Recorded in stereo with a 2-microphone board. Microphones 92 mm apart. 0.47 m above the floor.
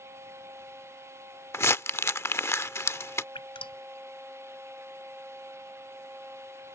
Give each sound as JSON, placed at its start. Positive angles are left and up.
{"t": 1.5, "sound": "crumpling", "side_deg": 30}
{"t": 3.4, "sound": "dripping", "side_deg": 70}